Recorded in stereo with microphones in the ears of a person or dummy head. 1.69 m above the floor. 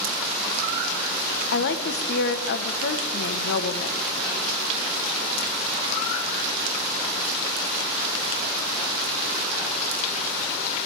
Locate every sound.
1.5 s a woman speaking: 65° left (ahead or behind), 1.1 m